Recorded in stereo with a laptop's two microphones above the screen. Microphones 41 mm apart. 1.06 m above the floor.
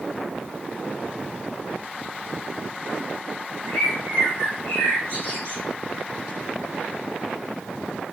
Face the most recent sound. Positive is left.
turn(degrees=65)  # may be behind; listen again after turning